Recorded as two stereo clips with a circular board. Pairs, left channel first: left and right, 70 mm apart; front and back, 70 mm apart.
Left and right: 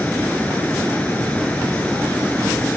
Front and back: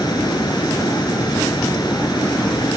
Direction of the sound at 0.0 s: 20° left.